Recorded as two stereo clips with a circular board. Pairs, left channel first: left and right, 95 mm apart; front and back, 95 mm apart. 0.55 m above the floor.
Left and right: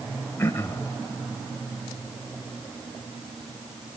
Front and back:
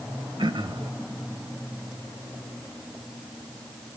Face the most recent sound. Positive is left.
turn(degrees=155)